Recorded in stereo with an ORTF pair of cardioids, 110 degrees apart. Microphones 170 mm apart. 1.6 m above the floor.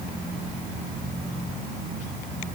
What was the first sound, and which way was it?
Only background noise.